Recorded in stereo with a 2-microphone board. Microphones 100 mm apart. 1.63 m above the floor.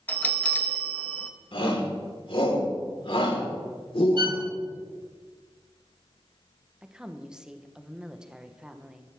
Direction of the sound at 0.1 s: 15° left (ahead or behind).